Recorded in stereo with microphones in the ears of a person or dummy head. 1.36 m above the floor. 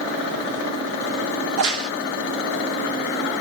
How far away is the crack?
About 1.2 m.